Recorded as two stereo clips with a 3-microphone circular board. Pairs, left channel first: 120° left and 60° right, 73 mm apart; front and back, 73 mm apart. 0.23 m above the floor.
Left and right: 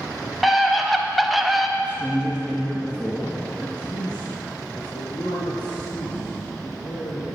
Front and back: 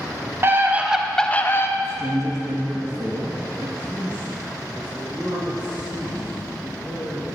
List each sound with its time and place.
0.4 s a scream: 150° right, 1.4 m; by 1.7 s 25° left, 1.4 m
1.8 s a man speaking: 170° right, 2.5 m
3.8 s a man speaking: 105° left, 5.5 m